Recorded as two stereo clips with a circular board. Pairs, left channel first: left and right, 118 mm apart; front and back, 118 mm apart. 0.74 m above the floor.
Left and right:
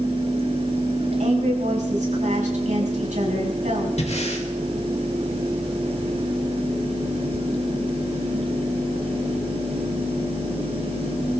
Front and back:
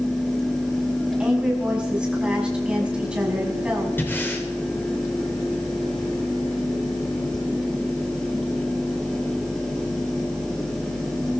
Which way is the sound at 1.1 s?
100° right.